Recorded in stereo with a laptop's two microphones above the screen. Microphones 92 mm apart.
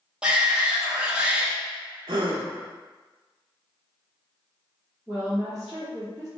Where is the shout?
10° right (ahead or behind), 1.2 m.